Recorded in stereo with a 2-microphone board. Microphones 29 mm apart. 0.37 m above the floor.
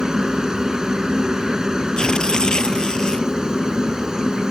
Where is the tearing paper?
25° left (ahead or behind).